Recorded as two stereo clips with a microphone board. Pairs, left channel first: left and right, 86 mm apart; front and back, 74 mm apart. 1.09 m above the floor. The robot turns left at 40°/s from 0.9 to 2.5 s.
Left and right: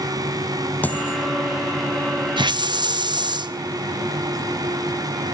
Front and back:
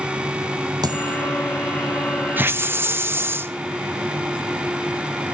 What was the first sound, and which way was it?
A dropped coin, 160° left.